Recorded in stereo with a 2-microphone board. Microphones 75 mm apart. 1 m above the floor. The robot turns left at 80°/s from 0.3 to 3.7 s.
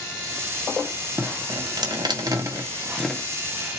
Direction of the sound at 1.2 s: 25° right (ahead or behind).